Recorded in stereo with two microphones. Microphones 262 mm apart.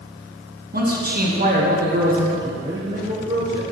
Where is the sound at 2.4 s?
15° right (ahead or behind), 2.5 m.